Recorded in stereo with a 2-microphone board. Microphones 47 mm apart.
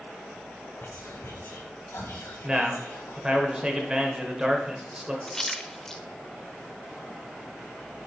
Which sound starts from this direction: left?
Whispering, at 0.8 s.